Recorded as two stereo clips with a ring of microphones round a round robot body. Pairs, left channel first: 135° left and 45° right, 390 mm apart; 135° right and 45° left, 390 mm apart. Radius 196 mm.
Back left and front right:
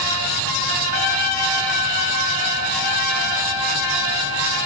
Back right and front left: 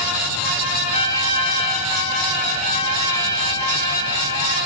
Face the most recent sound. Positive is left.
turn(degrees=150)